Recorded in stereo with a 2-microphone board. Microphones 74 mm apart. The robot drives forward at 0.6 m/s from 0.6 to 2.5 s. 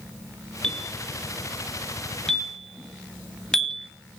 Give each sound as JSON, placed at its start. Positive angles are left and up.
{"t": 0.6, "sound": "a bell", "side_deg": 10, "distance_m": 1.9}